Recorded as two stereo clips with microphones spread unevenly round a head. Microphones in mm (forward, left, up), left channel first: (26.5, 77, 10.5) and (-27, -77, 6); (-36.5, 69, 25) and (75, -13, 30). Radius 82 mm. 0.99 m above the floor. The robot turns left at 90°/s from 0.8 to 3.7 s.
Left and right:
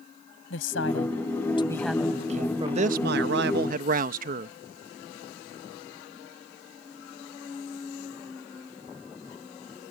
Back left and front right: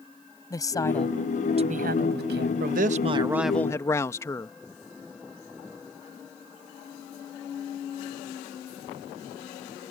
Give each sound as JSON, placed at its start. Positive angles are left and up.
{"t": 0.5, "sound": "a woman speaking", "azimuth_deg": 80}
{"t": 2.6, "sound": "a man speaking", "azimuth_deg": -45}